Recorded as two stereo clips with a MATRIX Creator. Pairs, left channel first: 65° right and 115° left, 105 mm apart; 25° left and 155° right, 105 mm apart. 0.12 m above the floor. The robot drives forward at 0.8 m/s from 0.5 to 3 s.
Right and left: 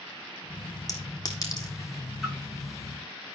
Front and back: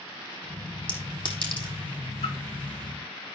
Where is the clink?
10° right, 3.5 m; by 1.7 s 15° right, 3 m.